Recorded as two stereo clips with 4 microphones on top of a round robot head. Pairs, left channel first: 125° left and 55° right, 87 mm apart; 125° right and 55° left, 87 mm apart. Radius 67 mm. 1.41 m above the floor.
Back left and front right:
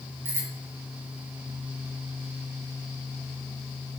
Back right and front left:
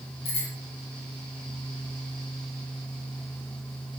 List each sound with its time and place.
0.2 s a bicycle bell: 115° right, 6 m